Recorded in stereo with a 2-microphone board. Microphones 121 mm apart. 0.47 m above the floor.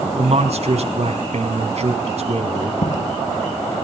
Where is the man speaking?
60° right (ahead or behind), 4 m.